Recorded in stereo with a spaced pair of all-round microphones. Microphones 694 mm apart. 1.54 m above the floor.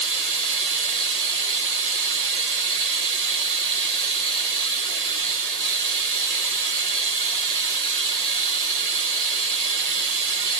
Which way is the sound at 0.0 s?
65° right (ahead or behind).